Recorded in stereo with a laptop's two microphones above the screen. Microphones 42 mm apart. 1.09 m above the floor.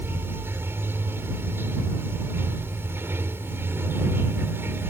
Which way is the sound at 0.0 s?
65° right (ahead or behind).